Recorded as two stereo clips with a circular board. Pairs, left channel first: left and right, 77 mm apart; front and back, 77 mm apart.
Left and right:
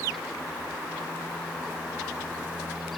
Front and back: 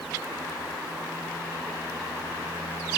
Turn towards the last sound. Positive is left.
No sound to turn to.